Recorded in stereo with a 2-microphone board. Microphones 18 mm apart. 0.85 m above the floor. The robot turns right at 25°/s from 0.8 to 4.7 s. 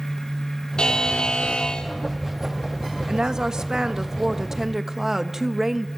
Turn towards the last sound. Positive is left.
turn(degrees=-25)